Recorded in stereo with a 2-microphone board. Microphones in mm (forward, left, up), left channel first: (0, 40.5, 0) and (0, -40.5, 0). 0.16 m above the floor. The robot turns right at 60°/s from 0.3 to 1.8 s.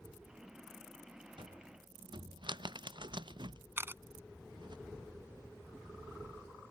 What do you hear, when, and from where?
1.4 s a cupboard door: 80° right; by 4.8 s 70° right (ahead or behind)
3.8 s a camera shutter: 30° right (ahead or behind)